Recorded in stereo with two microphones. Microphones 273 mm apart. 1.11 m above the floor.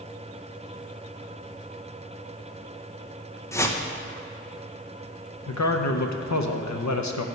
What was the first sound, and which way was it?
A whoosh, 10° left (ahead or behind).